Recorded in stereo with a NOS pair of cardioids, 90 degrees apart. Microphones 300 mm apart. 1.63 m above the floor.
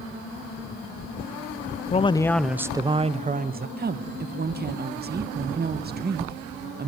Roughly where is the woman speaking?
Ahead right.